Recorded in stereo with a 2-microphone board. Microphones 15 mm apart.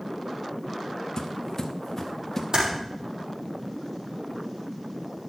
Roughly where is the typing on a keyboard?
Right.